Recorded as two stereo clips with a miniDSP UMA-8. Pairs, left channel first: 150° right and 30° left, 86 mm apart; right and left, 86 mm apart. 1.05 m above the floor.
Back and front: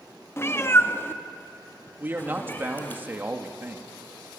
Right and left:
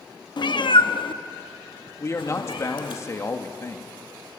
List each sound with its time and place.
0.4 s a cat meowing: 95° right, 0.6 m; by 3.0 s 85° right, 2.0 m
2.0 s a man speaking: 35° right, 1.6 m